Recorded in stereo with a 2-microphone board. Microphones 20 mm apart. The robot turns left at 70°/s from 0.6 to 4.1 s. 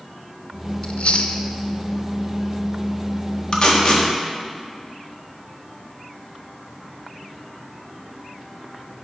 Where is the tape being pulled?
45° left (ahead or behind), 1.4 m; by 4.1 s 30° left (ahead or behind), 1.4 m.